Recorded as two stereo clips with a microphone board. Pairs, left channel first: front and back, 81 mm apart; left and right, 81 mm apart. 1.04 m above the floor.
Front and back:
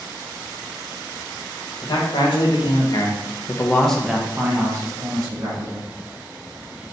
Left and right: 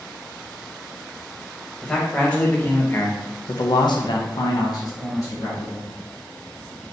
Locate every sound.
1.8 s a man speaking: 10° left, 1.4 m; by 5.9 s 145° left, 1.4 m